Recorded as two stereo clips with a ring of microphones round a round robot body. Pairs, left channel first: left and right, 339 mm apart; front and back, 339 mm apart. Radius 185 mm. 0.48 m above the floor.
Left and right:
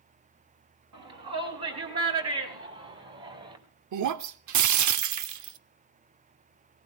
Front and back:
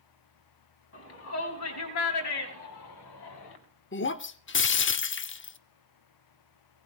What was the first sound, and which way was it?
A shout, 50° right.